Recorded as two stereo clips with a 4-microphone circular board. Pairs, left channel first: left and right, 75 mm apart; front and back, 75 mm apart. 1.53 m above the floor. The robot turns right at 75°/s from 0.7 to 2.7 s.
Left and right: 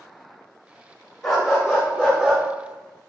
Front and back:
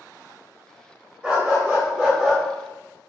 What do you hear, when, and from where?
1.2 s a dog barking: 170° left, 1.2 m; by 2.4 s 100° right, 1.2 m